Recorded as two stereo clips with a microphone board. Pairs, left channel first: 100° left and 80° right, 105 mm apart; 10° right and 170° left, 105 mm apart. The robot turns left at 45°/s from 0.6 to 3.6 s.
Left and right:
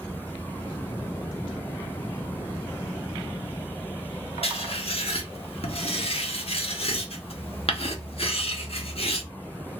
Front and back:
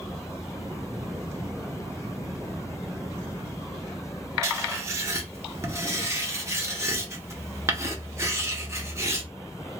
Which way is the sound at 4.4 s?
110° left.